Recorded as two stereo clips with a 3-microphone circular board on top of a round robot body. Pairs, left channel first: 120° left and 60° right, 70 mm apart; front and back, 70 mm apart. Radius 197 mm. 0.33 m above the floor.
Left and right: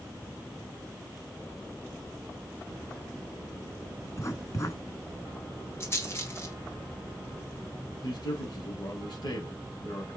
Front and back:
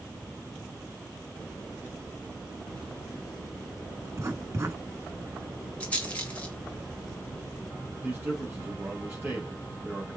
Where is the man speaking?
115° left, 3.5 m.